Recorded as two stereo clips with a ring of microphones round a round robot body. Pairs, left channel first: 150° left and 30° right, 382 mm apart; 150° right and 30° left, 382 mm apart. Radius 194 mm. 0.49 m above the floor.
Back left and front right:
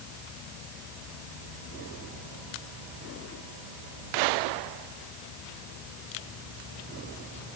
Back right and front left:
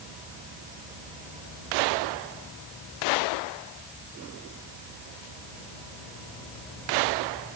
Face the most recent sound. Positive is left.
No sound to turn to.